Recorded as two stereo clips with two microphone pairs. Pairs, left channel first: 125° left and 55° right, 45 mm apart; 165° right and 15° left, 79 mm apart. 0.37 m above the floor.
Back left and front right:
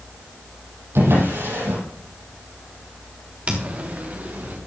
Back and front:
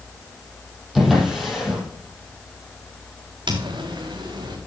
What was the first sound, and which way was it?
A drawer, 75° right.